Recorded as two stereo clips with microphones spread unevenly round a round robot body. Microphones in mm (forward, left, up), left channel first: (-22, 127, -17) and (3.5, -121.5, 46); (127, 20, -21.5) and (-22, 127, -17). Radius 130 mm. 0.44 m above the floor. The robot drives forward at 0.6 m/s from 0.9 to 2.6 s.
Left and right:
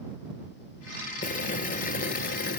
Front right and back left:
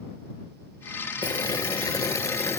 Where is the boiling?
30° left; by 2.6 s 40° left.